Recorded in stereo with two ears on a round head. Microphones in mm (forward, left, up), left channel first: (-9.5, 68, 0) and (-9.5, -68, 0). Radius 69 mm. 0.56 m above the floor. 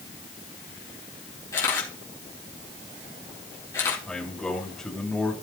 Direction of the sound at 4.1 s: 5° left (ahead or behind).